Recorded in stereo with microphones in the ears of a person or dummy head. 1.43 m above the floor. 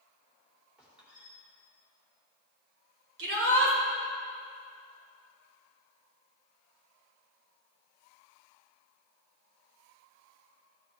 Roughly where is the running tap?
I don't hear a running tap.